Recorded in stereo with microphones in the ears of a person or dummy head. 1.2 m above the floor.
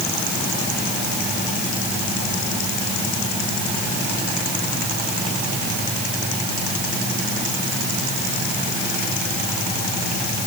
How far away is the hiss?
I don't hear a hiss.